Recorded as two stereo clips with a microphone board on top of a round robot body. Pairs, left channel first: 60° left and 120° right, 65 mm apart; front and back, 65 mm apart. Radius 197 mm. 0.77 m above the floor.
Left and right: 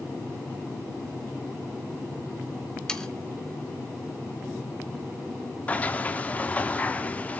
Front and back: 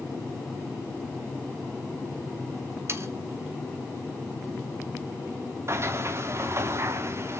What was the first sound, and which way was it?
Sawing, 140° left.